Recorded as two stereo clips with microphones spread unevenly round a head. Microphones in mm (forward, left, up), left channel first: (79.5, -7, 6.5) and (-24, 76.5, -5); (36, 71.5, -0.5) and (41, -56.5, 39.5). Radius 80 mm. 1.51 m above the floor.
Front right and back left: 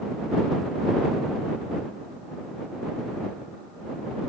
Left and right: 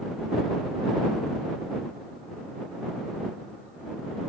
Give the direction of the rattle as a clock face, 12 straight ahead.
I don't hear a rattle.